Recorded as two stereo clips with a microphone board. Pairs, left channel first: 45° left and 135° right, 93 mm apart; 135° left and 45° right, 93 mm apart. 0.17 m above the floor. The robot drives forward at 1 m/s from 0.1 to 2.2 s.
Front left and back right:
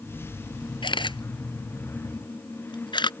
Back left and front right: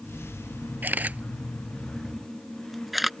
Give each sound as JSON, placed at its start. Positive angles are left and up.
{"t": 0.8, "sound": "a camera shutter", "azimuth_deg": 20}